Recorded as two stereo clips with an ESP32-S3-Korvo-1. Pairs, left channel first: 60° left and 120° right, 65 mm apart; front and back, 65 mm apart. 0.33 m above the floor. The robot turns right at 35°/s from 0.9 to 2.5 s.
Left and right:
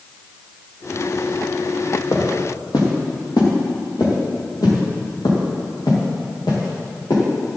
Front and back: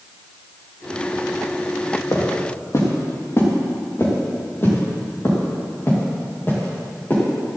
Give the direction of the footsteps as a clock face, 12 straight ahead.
11 o'clock.